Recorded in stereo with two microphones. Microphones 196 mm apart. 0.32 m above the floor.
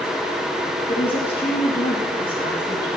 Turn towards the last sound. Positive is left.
turn(degrees=60)  # may be behind; listen again after turning